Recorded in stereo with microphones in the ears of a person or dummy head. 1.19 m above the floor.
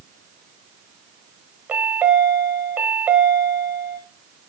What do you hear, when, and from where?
1.7 s a chime: 5° right (ahead or behind), 1.4 m